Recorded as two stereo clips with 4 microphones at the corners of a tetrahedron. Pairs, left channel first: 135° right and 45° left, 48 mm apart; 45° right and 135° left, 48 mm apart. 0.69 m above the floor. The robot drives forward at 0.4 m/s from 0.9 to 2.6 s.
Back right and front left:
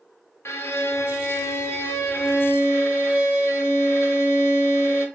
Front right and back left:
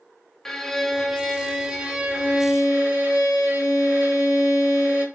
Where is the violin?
125° right, 0.5 m; by 5.1 s 160° right, 1.1 m.